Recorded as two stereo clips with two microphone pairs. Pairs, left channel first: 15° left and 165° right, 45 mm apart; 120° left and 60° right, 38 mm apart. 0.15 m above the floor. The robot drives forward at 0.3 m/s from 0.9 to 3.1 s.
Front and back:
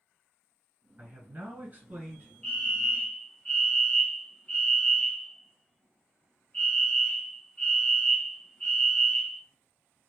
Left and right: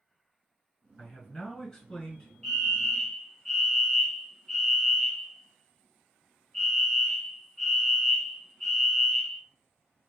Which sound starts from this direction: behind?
A man speaking, at 1.0 s.